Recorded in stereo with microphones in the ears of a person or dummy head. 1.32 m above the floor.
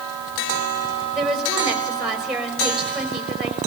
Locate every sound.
1.1 s a woman speaking: centre (ahead or behind), 5 m